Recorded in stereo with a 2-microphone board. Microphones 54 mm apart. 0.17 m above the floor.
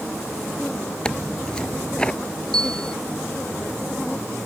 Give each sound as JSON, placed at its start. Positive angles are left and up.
{"t": 1.1, "sound": "tearing paper", "side_deg": 15}
{"t": 2.5, "sound": "a bell", "side_deg": 15}